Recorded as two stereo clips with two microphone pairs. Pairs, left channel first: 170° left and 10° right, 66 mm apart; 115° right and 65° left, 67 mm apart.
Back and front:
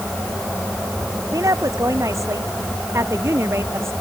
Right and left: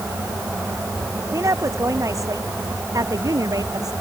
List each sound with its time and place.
1.3 s a woman speaking: 25° left; by 3.9 s 40° left